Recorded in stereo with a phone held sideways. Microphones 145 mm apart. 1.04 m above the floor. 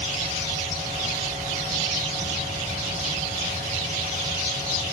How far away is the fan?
About 5 m.